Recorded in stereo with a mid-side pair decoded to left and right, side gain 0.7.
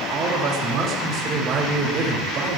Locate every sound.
0.1 s a man speaking: 50° right, 1.8 m